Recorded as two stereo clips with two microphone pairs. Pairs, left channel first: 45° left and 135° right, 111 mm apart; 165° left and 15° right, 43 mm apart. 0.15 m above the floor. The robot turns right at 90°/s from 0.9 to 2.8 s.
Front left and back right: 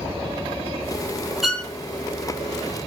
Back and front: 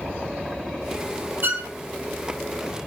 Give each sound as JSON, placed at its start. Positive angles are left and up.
{"t": 1.4, "sound": "a violin", "azimuth_deg": -50, "distance_m": 0.7}